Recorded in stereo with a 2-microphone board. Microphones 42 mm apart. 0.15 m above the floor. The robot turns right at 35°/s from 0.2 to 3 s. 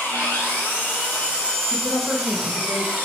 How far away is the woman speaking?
About 2 m.